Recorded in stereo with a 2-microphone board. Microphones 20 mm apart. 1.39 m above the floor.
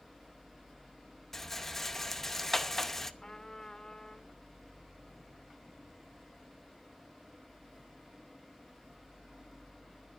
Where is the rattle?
15° left (ahead or behind), 0.7 m.